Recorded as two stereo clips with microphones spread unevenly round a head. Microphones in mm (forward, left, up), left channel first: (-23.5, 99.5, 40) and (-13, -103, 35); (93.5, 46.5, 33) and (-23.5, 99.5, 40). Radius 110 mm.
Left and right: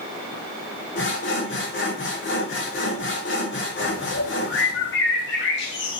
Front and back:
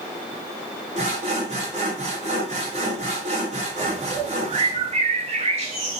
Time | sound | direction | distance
0.9 | sawing | 120° left | 1.8 m
3.8 | a bird | 125° left | 1.2 m